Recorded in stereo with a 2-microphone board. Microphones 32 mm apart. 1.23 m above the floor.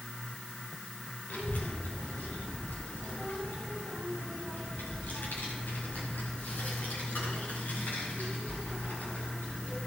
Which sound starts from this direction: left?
A child speaking, at 1.3 s.